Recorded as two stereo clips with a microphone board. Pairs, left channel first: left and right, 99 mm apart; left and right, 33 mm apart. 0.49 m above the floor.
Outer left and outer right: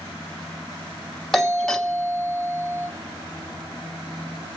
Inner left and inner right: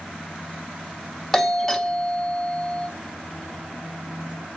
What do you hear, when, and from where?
1.3 s a doorbell: 5° left (ahead or behind), 1.3 m